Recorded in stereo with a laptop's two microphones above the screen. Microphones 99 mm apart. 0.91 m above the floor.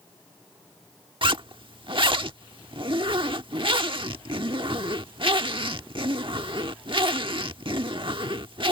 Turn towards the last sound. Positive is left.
turn(degrees=-60)  # may be behind; listen again after turning